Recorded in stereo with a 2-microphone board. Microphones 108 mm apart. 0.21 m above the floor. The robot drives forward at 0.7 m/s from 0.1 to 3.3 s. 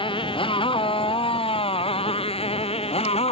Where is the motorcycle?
50° left (ahead or behind); by 3.3 s 60° left (ahead or behind).